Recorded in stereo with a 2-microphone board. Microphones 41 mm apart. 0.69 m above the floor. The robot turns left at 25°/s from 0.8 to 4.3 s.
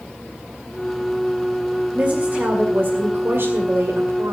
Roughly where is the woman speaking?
Ahead right.